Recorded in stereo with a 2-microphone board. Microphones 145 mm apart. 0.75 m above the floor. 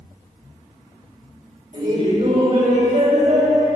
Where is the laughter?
55° right (ahead or behind), 3 m; by 3.7 s 65° right (ahead or behind), 5.5 m.